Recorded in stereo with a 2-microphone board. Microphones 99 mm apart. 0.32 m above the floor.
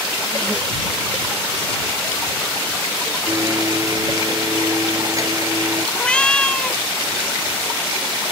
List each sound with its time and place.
3.3 s a blender: 30° right (ahead or behind)
6.0 s a cat meowing: 10° left (ahead or behind)